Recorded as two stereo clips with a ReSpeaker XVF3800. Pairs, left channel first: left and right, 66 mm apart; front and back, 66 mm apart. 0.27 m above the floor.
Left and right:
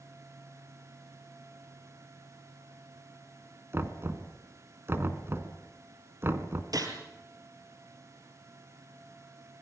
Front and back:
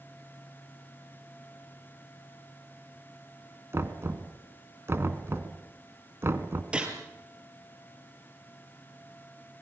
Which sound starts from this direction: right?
A gunshot, at 6.7 s.